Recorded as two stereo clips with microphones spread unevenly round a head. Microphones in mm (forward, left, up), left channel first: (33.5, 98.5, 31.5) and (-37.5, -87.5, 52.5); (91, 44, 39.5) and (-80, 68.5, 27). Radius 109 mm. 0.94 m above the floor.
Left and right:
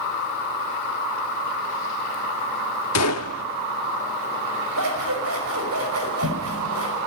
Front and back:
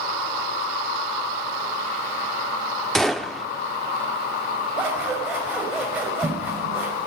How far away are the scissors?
About 6 m.